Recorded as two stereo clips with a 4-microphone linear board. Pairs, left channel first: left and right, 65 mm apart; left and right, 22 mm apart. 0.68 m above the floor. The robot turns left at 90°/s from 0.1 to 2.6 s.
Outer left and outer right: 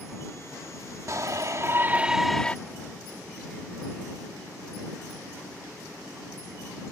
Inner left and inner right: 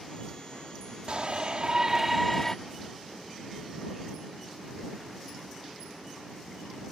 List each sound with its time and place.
1.1 s a shout: 70° right; by 2.5 s 155° left